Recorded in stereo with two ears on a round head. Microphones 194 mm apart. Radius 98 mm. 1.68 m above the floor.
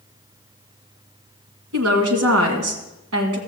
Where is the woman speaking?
70° right (ahead or behind), 1.9 m.